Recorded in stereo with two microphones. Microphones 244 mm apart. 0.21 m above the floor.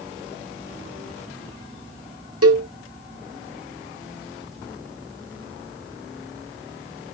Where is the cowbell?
85° right, 0.9 m.